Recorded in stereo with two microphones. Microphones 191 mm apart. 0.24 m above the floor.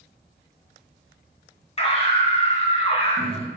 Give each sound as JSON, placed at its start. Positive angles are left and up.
{"t": 1.8, "sound": "a scream", "side_deg": 35, "distance_m": 2.5}